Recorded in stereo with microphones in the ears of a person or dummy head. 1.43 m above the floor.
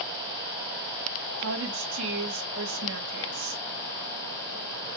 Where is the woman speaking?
70° right (ahead or behind), 2.5 m.